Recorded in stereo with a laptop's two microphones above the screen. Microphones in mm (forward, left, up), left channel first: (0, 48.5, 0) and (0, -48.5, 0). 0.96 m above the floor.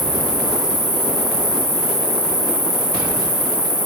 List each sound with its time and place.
0.0 s an insect: 25° left (ahead or behind), 3 m